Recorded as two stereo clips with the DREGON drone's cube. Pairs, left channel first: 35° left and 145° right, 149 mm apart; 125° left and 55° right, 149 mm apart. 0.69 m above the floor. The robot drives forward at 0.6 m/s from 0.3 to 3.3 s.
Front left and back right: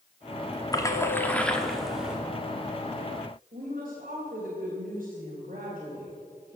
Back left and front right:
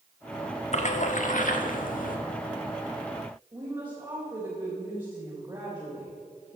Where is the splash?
95° left, 1.3 m; by 2.2 s 130° left, 1.7 m.